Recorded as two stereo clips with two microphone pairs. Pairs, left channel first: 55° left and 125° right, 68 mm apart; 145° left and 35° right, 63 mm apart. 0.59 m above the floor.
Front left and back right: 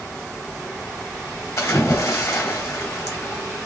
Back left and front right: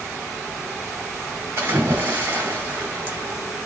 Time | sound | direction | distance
1.6 | a splash | 15° left | 1.9 m